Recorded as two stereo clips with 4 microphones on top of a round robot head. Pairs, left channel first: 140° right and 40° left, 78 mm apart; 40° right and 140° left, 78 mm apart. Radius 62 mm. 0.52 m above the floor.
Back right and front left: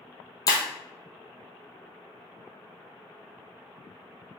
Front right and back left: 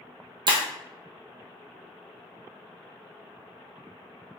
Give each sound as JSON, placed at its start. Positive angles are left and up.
{"t": 0.5, "sound": "breaking glass", "azimuth_deg": 175, "distance_m": 1.2}